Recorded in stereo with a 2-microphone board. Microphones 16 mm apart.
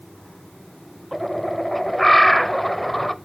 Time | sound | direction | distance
1.1 | a bird | 15° left (ahead or behind) | 0.6 m